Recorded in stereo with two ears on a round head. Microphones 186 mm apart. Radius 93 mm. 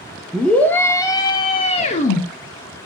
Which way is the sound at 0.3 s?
5° left (ahead or behind).